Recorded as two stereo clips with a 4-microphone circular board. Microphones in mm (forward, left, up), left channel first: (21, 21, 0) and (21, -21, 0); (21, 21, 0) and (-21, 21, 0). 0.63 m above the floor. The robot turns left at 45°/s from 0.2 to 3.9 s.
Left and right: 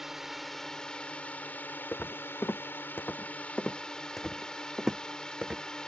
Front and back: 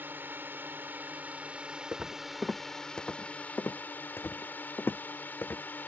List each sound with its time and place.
0.0 s a drone: 170° right; by 5.9 s 25° left
1.9 s footsteps: 130° left; by 5.6 s 25° right